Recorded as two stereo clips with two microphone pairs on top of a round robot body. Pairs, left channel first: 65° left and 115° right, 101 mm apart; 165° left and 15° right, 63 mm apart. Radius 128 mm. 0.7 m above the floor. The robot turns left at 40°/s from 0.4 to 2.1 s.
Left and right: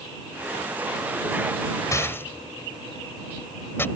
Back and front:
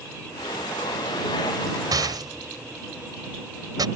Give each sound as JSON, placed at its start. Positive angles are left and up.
{"t": 1.9, "sound": "a rattle", "azimuth_deg": 5}